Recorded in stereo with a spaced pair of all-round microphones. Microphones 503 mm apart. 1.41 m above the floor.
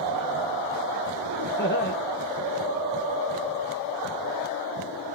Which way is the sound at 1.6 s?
20° left (ahead or behind).